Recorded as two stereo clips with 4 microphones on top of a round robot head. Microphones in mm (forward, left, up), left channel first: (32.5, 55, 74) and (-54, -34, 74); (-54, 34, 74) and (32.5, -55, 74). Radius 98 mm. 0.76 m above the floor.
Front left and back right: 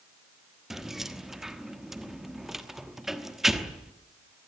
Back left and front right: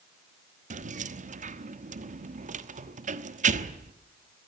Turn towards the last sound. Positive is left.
turn(degrees=-50)